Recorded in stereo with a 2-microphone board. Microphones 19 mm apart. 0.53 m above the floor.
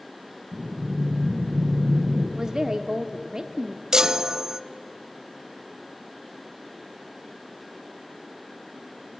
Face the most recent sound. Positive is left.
turn(degrees=-30)  # may be behind; listen again after turning